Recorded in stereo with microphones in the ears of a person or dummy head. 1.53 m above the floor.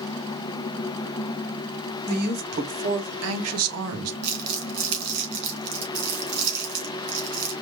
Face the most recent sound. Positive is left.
turn(degrees=-65)  # may be behind; listen again after turning